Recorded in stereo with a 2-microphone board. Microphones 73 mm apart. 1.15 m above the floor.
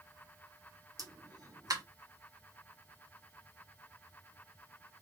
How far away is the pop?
About 0.9 m.